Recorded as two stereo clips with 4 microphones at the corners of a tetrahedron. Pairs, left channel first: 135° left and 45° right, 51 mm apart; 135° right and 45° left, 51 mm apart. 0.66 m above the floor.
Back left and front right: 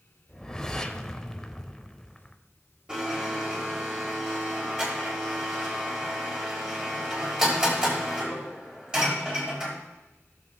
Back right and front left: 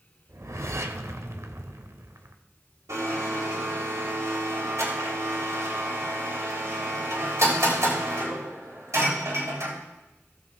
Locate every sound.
0.3 s a whoosh: 60° left, 0.7 m
2.9 s a blender: 30° left, 3.5 m